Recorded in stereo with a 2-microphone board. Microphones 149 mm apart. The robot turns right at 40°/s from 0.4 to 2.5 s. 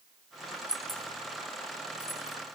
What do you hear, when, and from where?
0.7 s keys jangling: 5° right (ahead or behind), 0.9 m; by 2.4 s 50° left (ahead or behind), 0.9 m